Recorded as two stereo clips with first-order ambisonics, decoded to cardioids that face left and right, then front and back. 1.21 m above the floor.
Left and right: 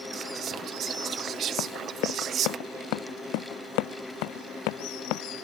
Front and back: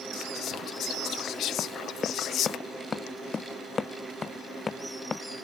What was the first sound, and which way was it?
Whispering, 40° right.